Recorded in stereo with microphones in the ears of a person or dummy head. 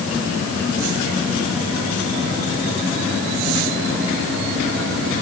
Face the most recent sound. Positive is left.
No sound to turn to.